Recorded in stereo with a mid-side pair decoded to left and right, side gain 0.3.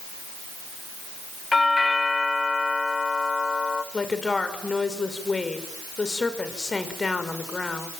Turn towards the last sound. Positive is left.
turn(degrees=40)